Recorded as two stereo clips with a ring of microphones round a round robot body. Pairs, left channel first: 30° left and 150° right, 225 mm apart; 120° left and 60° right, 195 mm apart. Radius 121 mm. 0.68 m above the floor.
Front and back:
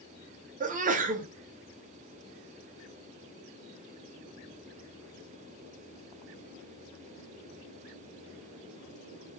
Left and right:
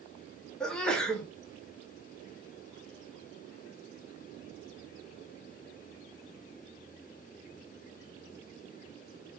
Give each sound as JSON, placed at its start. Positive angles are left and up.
{"t": 0.6, "sound": "a sneeze", "azimuth_deg": -160, "distance_m": 0.6}